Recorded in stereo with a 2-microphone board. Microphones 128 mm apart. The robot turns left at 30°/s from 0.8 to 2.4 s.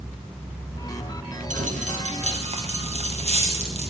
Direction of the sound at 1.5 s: 80° right.